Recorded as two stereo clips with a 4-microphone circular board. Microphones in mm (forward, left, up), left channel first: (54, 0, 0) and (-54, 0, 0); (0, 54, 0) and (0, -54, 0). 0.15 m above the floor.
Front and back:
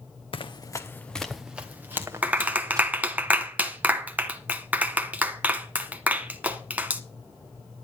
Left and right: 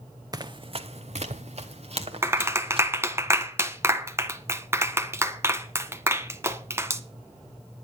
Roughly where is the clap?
Behind right.